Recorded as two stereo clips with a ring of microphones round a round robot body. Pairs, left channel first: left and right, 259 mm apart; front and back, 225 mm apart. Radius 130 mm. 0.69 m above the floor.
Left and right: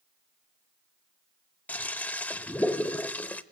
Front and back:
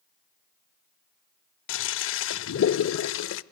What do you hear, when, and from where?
1.7 s a toilet flushing: 5° left, 0.5 m